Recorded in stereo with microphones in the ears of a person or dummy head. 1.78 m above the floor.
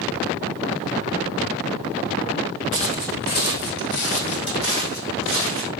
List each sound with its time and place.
2.7 s footsteps: 25° left (ahead or behind), 2 m; by 5.7 s 65° left (ahead or behind), 4.5 m